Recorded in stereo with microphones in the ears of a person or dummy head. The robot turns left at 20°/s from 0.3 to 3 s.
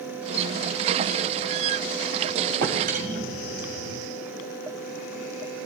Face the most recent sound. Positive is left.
turn(degrees=-40)  # may be behind; listen again after turning